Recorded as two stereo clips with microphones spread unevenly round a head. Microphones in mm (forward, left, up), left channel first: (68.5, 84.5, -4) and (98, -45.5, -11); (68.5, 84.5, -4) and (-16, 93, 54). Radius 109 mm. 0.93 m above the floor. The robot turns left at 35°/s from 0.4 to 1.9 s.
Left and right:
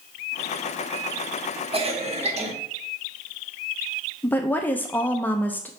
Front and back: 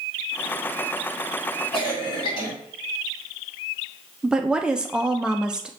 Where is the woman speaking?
30° left, 0.6 m.